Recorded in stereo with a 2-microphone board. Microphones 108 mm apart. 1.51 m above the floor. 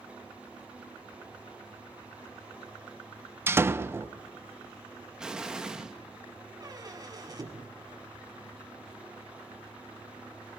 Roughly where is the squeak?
Right.